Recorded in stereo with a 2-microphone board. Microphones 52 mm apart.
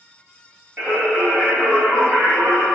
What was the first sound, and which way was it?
Singing, 35° right (ahead or behind).